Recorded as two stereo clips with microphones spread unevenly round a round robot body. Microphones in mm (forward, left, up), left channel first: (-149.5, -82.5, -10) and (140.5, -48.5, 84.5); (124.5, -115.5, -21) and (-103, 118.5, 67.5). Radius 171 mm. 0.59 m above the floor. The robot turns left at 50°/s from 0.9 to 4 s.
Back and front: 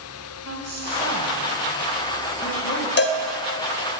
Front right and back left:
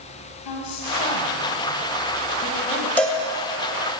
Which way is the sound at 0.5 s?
35° right.